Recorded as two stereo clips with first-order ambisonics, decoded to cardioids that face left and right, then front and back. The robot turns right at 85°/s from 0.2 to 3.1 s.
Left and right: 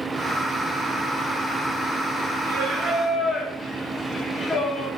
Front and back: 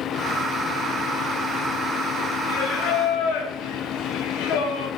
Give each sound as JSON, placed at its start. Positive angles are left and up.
{"t": 2.4, "sound": "singing", "azimuth_deg": -50, "distance_m": 1.3}